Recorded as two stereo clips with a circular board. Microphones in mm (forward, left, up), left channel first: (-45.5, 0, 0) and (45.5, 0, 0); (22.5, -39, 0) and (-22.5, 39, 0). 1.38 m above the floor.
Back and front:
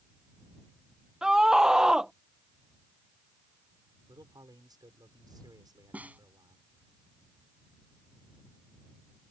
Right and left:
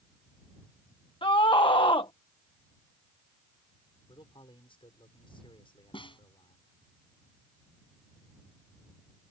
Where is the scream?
80° right.